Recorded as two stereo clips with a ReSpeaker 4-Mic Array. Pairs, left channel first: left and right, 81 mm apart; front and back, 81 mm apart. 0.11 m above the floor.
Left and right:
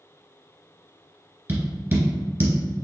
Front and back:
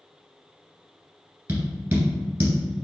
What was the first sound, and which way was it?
Tapping, 135° right.